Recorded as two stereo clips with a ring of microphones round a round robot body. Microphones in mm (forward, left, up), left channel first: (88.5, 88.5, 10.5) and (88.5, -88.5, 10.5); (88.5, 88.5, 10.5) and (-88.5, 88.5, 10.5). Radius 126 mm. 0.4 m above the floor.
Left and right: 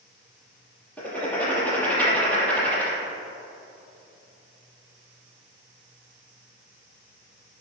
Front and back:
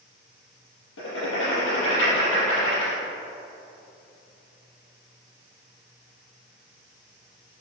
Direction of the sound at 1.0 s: 10° left.